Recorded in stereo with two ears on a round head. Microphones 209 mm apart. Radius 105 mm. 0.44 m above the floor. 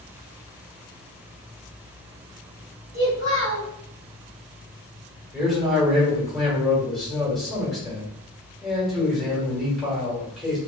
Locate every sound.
2.9 s a child speaking: 35° right (ahead or behind), 1.6 m
5.3 s a man speaking: centre (ahead or behind), 1.6 m